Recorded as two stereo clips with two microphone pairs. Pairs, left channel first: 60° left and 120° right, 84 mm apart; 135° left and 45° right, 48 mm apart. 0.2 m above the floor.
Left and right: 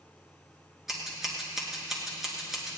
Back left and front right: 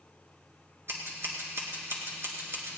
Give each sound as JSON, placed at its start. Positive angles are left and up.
{"t": 0.9, "sound": "scissors", "azimuth_deg": -35, "distance_m": 2.5}